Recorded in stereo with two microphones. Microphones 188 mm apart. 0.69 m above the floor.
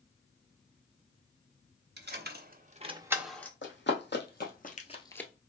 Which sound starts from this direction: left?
Running footsteps, at 3.6 s.